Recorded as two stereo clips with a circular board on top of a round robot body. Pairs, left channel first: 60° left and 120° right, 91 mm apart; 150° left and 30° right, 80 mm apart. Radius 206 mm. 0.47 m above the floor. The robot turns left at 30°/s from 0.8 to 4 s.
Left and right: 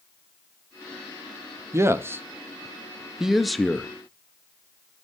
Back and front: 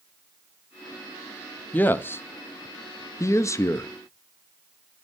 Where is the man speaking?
155° right, 0.8 m; by 3.9 s 140° left, 0.8 m.